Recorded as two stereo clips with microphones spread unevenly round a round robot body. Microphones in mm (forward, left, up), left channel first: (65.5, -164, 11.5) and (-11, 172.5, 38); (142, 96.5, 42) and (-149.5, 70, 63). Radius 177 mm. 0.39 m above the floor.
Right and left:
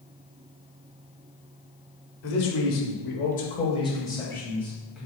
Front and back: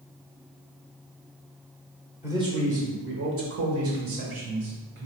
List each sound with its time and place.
2.2 s a man speaking: 90° right, 1.1 m; by 5.1 s 170° right, 1.9 m